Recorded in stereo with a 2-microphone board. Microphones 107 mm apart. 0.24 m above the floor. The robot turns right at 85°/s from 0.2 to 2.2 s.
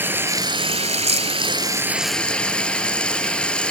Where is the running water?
160° right, 0.7 m; by 3.7 s 10° left, 0.7 m.